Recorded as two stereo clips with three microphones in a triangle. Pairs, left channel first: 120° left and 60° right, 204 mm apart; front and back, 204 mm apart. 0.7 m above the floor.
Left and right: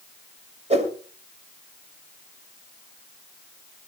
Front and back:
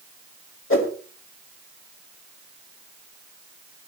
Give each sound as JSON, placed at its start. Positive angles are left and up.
{"t": 0.7, "sound": "a whoosh", "azimuth_deg": 0, "distance_m": 2.5}